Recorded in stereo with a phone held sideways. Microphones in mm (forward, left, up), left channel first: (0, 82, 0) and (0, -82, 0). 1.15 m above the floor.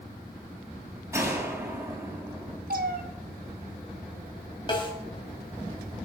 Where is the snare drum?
30° left (ahead or behind), 3.5 m.